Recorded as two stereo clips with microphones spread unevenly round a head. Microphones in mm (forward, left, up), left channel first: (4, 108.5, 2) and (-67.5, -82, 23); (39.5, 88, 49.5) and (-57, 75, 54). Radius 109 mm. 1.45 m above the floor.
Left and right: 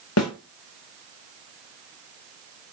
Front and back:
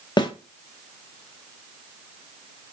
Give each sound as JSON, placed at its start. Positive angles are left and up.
{"t": 0.2, "sound": "a snare drum", "azimuth_deg": 50, "distance_m": 0.7}